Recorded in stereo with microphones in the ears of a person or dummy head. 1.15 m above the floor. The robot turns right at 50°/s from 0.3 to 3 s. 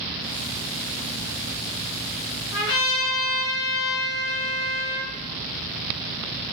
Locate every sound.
2.5 s a trumpet: 55° left (ahead or behind), 1.1 m; by 5.1 s 75° left (ahead or behind), 1.1 m